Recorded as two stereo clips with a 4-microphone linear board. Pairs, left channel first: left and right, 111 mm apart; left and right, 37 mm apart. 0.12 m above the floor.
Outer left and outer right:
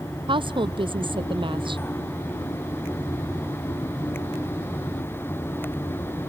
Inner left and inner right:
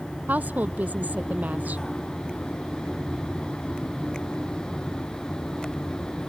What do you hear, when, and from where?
0.3 s a woman speaking: 50° right (ahead or behind)